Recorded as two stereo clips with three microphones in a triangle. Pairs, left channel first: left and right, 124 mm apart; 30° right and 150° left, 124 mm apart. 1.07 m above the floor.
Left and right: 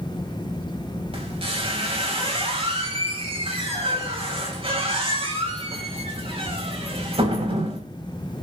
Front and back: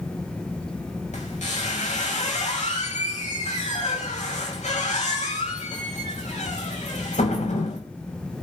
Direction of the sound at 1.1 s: 50° right.